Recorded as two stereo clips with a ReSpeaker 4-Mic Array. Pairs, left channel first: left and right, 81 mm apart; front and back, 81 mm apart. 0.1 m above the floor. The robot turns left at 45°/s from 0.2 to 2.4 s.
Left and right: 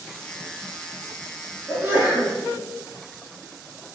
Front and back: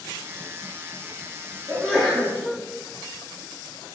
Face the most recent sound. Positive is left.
turn(degrees=-90)